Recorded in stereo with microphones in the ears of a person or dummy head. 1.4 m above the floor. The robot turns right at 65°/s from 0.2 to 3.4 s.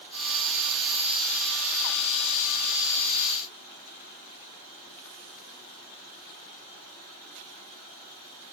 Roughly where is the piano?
No piano in this recording.